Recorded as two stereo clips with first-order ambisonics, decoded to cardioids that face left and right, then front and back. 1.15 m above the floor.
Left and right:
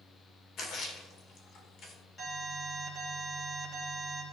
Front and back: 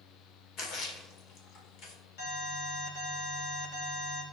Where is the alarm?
15° left, 3 m.